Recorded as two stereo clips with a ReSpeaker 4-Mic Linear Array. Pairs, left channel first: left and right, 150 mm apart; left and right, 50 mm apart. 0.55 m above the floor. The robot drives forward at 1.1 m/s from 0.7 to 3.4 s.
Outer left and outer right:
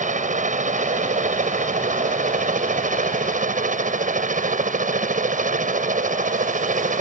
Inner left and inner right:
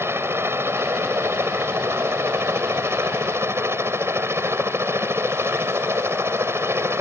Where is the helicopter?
55° right (ahead or behind); by 7.0 s 60° right (ahead or behind).